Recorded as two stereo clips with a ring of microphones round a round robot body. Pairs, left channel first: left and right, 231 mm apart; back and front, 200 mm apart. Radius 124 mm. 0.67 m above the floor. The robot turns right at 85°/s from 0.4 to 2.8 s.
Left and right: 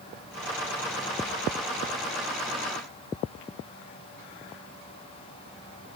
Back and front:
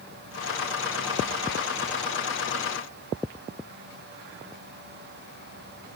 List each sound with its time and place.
Only background noise.